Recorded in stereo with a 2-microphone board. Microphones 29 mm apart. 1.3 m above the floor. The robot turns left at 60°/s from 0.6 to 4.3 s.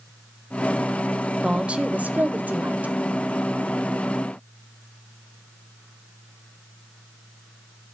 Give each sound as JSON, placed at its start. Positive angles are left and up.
{"t": 1.4, "sound": "a woman speaking", "azimuth_deg": -30, "distance_m": 0.7}